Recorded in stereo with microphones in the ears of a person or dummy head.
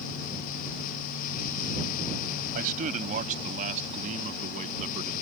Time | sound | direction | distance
2.5 | a man speaking | 45° right (ahead or behind) | ?